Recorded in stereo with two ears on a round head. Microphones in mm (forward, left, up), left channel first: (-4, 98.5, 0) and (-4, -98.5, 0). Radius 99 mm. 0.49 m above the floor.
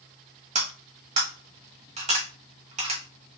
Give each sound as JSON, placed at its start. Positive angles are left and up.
{"t": 0.6, "sound": "cutlery clinking", "side_deg": -30, "distance_m": 1.5}